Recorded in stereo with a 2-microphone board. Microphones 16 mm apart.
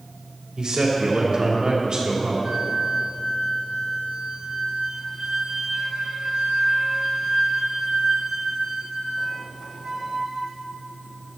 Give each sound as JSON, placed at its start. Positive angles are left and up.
{"t": 0.6, "sound": "a man speaking", "side_deg": -55, "distance_m": 2.5}
{"t": 2.4, "sound": "a flute", "side_deg": -65, "distance_m": 1.6}